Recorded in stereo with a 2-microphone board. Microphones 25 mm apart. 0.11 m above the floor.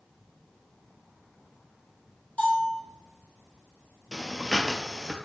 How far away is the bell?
About 1.4 m.